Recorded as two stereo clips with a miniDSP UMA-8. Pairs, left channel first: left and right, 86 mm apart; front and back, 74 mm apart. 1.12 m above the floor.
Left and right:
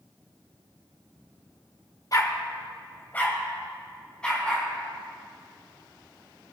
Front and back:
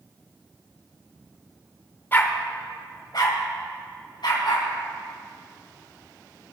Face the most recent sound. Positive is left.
turn(degrees=10)